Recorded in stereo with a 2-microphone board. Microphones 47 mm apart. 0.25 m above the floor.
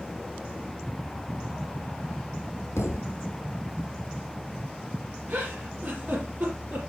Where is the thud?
75° left (ahead or behind), 2.5 m.